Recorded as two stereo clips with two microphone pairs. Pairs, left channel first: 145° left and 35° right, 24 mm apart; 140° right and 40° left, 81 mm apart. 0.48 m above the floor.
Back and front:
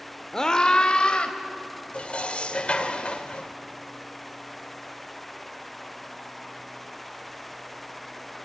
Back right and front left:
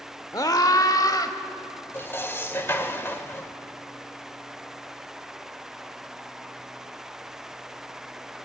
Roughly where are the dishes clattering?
Behind.